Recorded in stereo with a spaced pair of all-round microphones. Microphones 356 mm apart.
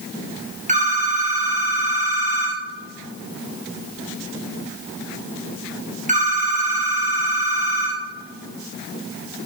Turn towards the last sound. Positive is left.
turn(degrees=-20)  # may be behind; listen again after turning